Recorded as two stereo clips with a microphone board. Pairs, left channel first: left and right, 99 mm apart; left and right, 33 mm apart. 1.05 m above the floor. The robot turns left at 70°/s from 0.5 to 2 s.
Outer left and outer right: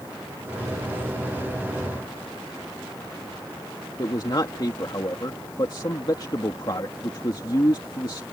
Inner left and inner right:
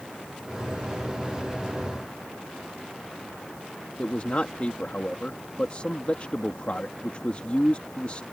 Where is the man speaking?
45° left (ahead or behind).